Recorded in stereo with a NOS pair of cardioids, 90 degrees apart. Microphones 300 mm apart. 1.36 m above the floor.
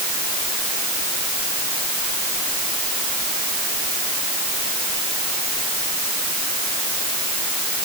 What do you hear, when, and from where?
Only background noise.